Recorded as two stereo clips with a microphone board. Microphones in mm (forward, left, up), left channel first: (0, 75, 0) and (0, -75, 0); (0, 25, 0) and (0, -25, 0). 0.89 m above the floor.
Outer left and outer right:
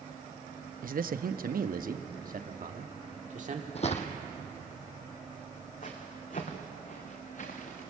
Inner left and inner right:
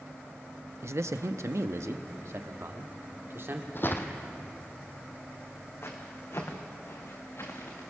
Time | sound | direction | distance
0.8 | a man speaking | 65° right (ahead or behind) | 0.7 m
3.8 | footsteps | 45° left (ahead or behind) | 1.8 m